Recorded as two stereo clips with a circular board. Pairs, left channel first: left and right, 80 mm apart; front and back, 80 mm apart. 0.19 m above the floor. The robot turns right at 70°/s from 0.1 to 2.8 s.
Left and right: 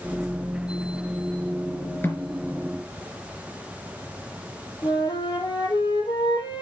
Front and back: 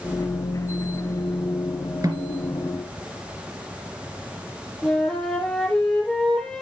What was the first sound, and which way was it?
A snare drum, 140° left.